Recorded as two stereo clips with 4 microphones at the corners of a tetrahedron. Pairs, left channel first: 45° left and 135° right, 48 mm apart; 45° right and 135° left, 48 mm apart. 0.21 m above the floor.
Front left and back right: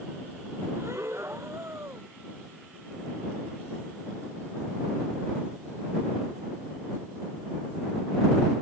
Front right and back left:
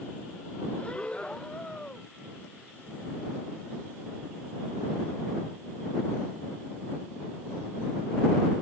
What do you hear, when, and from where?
0.8 s breathing: 110° right